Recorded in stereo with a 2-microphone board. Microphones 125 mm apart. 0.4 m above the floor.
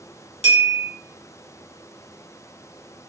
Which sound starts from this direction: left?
A bell, at 0.4 s.